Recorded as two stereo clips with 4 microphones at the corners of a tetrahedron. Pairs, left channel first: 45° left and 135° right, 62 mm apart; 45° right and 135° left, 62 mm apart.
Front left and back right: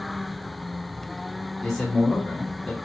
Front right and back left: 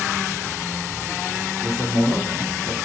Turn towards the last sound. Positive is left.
turn(degrees=130)